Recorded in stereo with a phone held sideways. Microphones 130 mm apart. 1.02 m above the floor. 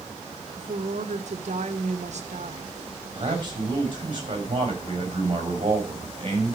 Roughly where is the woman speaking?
Right.